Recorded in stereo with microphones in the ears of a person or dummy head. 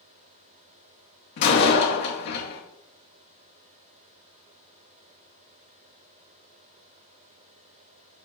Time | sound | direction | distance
1.4 | a door slam | 50° left (ahead or behind) | 2.5 m